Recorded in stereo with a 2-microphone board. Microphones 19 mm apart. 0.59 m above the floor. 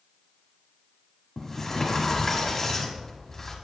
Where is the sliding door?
20° left (ahead or behind), 1.5 m.